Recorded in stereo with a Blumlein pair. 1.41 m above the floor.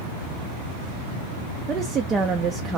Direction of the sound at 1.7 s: 20° right.